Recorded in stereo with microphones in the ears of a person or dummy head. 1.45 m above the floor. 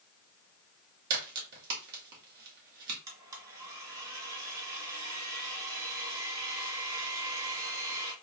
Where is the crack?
55° right (ahead or behind), 1.9 m.